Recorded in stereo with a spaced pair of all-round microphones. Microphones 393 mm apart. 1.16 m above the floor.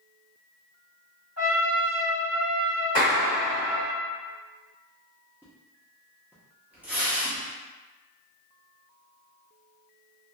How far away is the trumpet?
About 1.0 m.